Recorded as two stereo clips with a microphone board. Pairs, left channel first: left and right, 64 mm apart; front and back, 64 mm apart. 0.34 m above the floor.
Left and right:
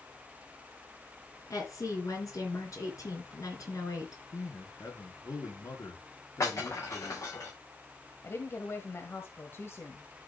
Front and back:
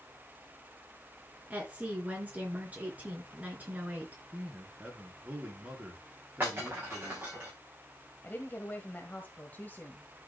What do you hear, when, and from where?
1.5 s a woman speaking: 115° left, 4 m
4.3 s a man speaking: 115° left, 4.5 m
6.4 s breaking glass: 125° left, 8 m
8.2 s a woman speaking: 55° left, 1.4 m